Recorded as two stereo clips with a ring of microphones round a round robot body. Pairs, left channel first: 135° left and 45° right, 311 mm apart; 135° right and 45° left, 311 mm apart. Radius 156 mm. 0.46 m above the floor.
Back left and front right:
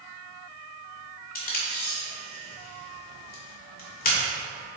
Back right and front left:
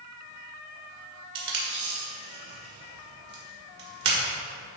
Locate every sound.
1.4 s tape being pulled: 80° left, 1.9 m